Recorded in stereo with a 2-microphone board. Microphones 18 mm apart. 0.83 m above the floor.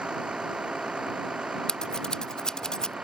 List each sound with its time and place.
0.0 s a vehicle: 75° right (ahead or behind)
1.7 s scissors: 45° left (ahead or behind)